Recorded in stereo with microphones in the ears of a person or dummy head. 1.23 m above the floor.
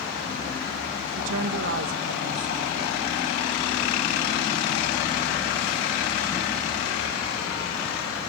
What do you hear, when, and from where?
1.2 s a woman speaking: 65° right (ahead or behind), 1.4 m